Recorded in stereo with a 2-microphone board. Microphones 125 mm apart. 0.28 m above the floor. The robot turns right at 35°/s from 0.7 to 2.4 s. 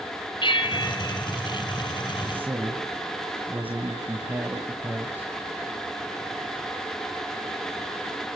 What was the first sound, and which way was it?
A bell, 40° left (ahead or behind).